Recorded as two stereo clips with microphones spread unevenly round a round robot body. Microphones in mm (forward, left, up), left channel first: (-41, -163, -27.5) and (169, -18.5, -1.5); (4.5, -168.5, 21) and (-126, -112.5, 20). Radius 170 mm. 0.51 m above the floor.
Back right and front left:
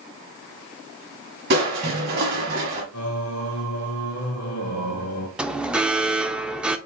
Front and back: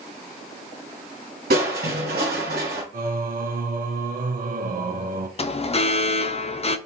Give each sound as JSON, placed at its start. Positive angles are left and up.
{"t": 1.5, "sound": "crushing", "azimuth_deg": 100, "distance_m": 1.0}
{"t": 2.9, "sound": "singing", "azimuth_deg": 170, "distance_m": 0.9}
{"t": 5.4, "sound": "an alarm", "azimuth_deg": -55, "distance_m": 0.6}